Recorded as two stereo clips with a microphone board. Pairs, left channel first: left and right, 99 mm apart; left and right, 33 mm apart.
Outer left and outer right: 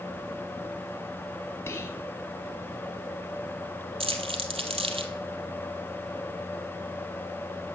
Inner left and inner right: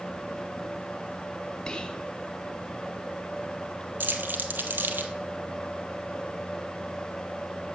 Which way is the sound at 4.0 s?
75° right (ahead or behind).